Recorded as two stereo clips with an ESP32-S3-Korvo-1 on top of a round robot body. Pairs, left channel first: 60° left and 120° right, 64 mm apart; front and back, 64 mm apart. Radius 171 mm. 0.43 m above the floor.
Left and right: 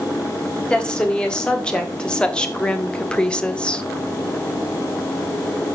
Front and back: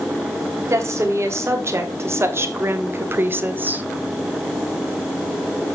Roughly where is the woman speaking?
Behind left.